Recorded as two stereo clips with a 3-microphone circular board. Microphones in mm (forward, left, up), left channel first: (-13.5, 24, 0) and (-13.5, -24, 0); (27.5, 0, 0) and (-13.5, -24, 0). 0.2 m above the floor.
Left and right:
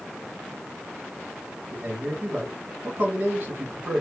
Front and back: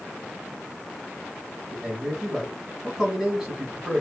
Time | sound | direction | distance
1.7 | a man speaking | 70° right | 1.6 m